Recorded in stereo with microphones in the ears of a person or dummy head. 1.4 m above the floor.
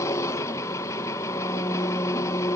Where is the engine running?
20° left (ahead or behind), 0.8 m.